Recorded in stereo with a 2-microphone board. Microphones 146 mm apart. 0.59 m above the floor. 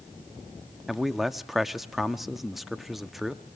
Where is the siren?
No siren in this recording.